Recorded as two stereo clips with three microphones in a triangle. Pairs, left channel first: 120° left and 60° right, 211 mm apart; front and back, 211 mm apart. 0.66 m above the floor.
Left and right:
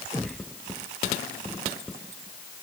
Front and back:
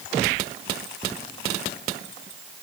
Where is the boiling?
I don't hear boiling.